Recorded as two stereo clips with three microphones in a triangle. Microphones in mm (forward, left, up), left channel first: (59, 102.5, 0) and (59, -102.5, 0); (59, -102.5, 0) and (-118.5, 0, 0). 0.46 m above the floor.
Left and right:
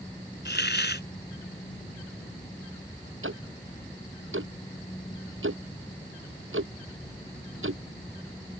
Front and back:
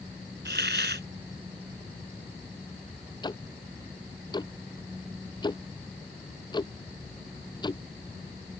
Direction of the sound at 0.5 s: 120° left.